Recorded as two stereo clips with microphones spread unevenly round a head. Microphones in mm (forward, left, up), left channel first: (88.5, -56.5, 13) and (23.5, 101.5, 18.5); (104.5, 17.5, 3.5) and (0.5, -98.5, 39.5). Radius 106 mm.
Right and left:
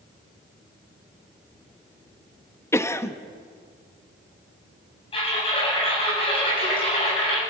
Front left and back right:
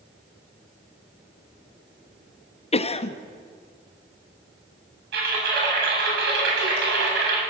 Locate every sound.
2.7 s a cough: 5° left, 1.5 m
5.1 s typing on a keyboard: 135° right, 8 m